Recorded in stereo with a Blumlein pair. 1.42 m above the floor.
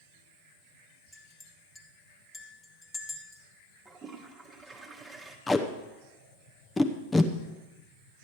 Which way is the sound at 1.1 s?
10° left.